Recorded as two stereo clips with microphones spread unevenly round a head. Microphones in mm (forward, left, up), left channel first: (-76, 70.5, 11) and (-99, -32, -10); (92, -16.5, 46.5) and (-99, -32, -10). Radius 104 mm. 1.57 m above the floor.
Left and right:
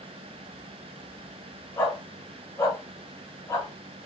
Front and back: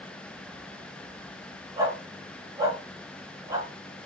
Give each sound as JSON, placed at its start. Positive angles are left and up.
{"t": 1.8, "sound": "a dog barking", "azimuth_deg": 100, "distance_m": 1.6}